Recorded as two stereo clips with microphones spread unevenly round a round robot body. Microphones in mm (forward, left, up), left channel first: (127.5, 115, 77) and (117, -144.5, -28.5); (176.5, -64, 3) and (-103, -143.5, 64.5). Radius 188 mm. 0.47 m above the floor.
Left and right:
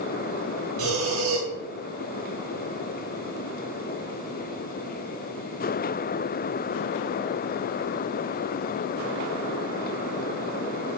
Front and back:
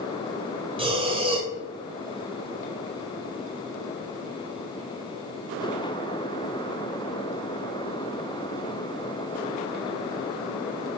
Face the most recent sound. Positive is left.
turn(degrees=-90)